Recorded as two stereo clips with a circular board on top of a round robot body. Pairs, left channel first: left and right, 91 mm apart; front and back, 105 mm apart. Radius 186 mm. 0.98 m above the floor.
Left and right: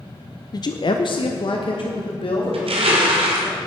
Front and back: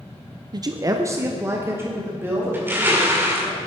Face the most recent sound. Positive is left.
turn(degrees=-110)